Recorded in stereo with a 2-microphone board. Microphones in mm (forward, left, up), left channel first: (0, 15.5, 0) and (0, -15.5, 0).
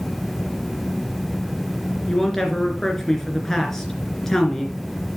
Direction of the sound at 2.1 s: 15° left (ahead or behind).